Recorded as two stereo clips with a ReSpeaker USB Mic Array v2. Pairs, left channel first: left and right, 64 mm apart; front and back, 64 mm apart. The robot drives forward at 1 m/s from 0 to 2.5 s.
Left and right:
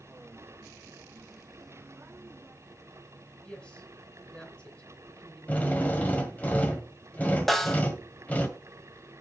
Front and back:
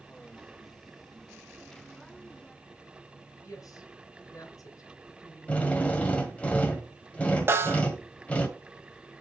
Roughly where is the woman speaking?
Ahead.